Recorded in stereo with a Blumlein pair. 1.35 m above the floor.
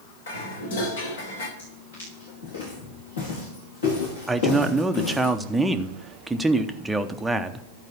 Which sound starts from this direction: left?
Footsteps, at 1.6 s.